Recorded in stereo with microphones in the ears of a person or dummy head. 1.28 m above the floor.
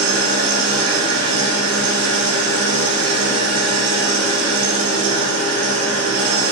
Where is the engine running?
85° right, 1.1 m.